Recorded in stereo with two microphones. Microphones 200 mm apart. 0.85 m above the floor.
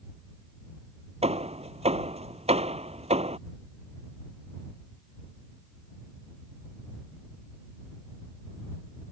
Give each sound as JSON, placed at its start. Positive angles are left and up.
{"t": 1.2, "sound": "hammering", "side_deg": -35}